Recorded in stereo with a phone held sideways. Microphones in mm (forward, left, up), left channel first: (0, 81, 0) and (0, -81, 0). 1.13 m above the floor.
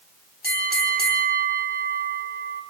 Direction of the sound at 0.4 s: 80° right.